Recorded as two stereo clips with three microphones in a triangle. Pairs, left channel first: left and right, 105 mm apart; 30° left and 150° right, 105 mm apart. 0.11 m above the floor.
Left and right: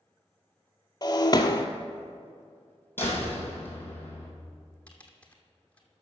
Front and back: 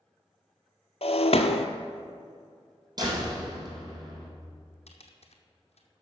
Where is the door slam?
160° left, 2.5 m.